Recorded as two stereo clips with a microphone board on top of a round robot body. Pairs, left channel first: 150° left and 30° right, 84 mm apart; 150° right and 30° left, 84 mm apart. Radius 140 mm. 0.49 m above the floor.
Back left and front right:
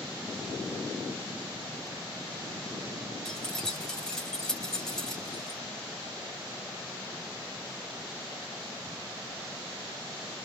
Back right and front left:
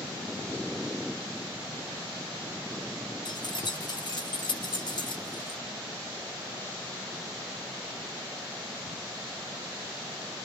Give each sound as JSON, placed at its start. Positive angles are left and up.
{"t": 3.2, "sound": "keys jangling", "azimuth_deg": -125, "distance_m": 1.1}